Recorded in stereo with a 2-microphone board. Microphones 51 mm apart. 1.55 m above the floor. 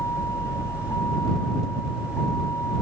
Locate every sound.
0.0 s a vehicle: 75° left (ahead or behind)